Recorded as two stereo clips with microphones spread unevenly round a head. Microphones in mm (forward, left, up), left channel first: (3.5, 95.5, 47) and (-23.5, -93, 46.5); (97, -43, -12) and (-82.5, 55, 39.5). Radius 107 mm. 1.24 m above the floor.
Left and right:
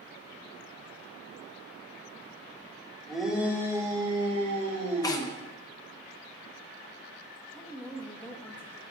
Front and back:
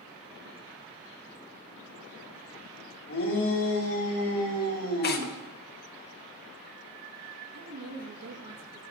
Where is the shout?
5° right, 2.5 m; by 5.3 s 50° right, 3.5 m.